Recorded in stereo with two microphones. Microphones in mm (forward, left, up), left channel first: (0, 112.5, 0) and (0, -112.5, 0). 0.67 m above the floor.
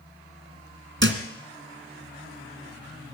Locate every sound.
1.0 s a thud: 55° right (ahead or behind), 2.0 m